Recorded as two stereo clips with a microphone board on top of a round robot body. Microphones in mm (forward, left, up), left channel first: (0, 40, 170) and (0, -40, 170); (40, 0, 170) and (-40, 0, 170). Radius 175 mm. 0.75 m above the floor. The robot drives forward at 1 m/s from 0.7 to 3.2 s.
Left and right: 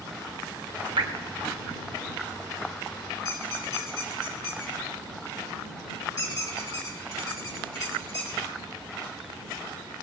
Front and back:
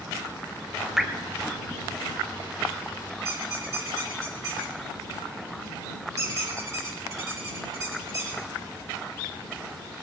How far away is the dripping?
About 1.1 m.